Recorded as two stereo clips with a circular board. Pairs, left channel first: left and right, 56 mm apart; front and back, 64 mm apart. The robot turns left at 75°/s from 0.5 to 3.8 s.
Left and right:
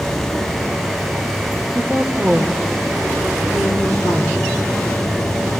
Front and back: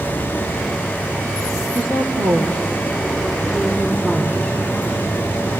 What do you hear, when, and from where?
1.8 s a woman speaking: 130° right, 5 m; by 4.5 s 75° left, 5 m